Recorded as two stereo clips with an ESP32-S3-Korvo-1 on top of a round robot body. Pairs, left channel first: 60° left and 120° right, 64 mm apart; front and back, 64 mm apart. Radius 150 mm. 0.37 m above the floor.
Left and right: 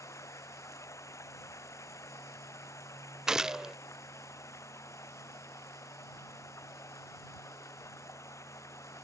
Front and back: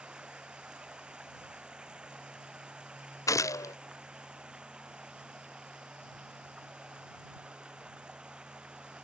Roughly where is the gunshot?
Ahead right.